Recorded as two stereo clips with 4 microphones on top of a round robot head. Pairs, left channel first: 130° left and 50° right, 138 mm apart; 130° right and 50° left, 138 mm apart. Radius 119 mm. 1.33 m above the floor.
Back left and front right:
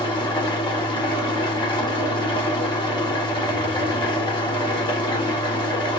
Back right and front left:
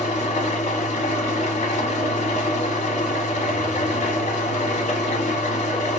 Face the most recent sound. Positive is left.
turn(degrees=-170)